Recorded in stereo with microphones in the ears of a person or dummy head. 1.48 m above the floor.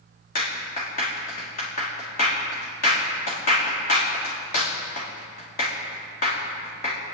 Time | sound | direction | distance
0.3 | a clap | 45° left (ahead or behind) | 3 m